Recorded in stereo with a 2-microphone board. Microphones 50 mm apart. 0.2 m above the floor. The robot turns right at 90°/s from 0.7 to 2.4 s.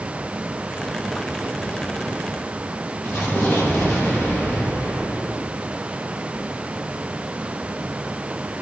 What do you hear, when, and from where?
3.0 s an explosion: 60° left (ahead or behind), 7.5 m